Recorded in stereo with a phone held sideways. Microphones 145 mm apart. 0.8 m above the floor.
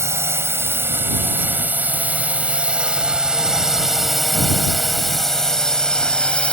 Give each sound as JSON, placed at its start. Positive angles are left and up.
{"t": 0.0, "sound": "a drone", "side_deg": -20}